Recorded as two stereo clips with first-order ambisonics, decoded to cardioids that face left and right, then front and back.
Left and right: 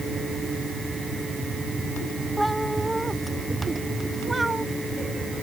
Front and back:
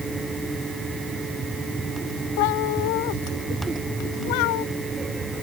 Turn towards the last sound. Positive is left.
turn(degrees=-10)